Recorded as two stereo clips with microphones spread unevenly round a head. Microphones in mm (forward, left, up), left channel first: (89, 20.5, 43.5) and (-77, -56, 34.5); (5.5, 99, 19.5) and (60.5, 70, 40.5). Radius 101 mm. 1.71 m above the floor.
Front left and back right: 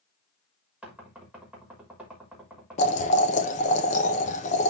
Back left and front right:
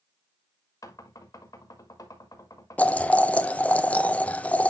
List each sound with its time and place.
0.8 s knocking: 120° left, 3.5 m
2.8 s boiling: 75° left, 1.1 m